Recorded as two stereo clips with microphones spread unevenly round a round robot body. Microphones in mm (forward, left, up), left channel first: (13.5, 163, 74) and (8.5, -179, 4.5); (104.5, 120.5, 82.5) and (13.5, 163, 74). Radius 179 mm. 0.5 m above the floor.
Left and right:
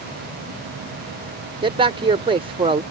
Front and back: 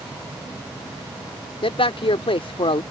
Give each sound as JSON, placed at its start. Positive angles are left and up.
{"t": 1.6, "sound": "a man speaking", "azimuth_deg": -30}